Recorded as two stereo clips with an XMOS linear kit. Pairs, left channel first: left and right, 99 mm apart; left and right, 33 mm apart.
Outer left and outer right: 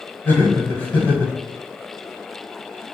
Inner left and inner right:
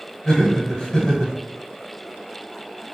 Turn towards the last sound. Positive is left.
turn(degrees=20)  # may be behind; listen again after turning